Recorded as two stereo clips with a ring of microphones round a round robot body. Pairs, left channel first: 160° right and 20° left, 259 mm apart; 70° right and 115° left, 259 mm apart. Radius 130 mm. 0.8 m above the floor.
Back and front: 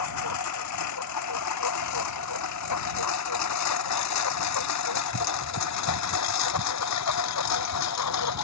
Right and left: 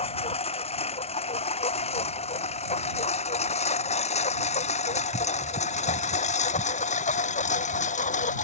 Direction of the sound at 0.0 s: 135° right.